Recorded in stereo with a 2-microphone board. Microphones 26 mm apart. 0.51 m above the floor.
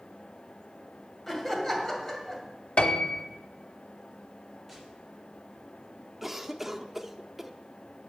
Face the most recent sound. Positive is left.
turn(degrees=-10)  # may be behind; listen again after turning